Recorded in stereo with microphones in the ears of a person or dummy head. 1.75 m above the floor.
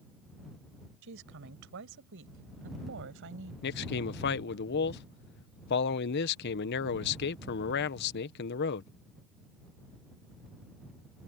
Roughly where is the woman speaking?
Right.